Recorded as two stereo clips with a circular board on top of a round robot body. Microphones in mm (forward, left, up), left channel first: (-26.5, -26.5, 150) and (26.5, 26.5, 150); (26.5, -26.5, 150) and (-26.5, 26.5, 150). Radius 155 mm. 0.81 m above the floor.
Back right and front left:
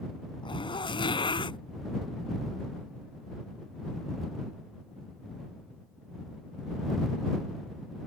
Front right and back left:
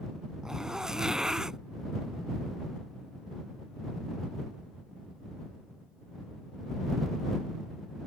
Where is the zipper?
145° right.